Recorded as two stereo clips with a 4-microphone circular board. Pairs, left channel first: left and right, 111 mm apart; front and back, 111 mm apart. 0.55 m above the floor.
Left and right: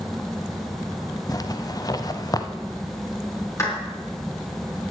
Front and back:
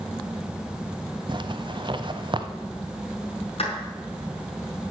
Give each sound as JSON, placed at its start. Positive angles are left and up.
{"t": 1.3, "sound": "a zipper", "azimuth_deg": 140, "distance_m": 0.7}
{"t": 3.6, "sound": "a clap", "azimuth_deg": 25, "distance_m": 5.0}